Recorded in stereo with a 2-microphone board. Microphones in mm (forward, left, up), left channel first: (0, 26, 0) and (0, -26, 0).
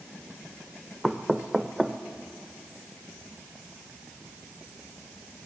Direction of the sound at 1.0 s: Centre (ahead or behind).